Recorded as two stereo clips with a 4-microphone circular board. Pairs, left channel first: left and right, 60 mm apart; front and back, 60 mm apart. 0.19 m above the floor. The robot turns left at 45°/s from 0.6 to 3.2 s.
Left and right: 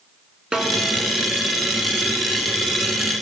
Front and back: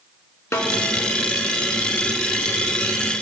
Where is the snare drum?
20° right, 0.7 m; by 0.8 s 25° right, 0.7 m.